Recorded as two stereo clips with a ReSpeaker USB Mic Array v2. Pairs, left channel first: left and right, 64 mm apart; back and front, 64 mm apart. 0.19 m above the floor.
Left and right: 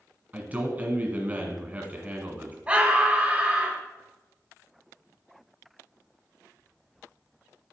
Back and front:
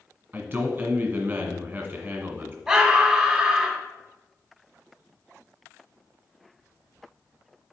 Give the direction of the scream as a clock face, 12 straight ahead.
2 o'clock.